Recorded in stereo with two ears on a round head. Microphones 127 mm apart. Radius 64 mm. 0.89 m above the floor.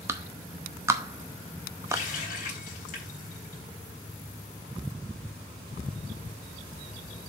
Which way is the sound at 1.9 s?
60° left (ahead or behind).